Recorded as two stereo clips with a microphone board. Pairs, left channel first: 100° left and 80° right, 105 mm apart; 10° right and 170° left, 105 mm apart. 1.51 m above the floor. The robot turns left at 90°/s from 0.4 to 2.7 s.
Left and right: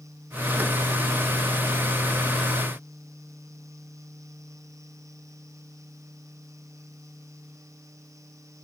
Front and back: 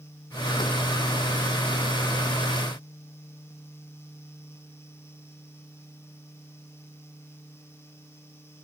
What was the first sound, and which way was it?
Only background noise.